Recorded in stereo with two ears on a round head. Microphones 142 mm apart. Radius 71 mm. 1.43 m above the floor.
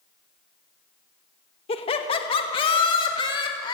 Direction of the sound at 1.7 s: 40° left (ahead or behind).